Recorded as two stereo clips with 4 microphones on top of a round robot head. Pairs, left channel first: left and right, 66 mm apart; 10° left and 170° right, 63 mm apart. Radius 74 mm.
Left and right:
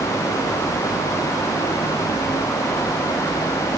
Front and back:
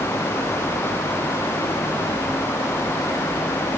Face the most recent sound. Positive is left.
No sound to turn to.